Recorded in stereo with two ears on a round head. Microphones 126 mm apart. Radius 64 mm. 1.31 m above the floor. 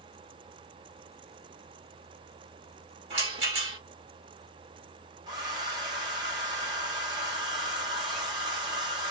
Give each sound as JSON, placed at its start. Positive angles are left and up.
{"t": 3.1, "sound": "a rattle", "side_deg": -40, "distance_m": 1.4}
{"t": 5.3, "sound": "a hair dryer", "side_deg": -30, "distance_m": 0.9}